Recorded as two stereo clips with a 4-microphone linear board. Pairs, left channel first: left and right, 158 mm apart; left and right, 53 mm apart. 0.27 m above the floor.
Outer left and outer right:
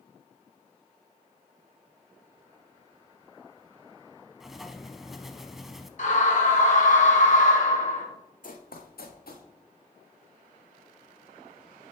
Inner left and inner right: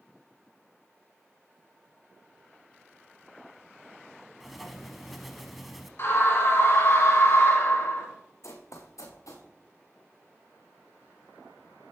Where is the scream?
55° left (ahead or behind), 2.5 m.